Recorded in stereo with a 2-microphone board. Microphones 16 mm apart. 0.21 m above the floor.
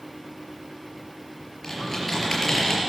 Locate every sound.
1.6 s typing on a keyboard: 20° left (ahead or behind), 4.5 m